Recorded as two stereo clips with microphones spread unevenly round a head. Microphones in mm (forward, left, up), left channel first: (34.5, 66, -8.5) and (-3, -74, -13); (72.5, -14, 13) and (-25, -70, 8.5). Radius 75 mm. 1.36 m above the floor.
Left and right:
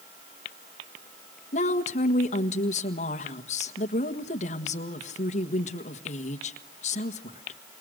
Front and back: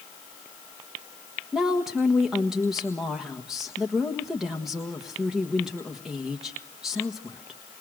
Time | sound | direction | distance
1.5 | a woman speaking | 125° left | 1.5 m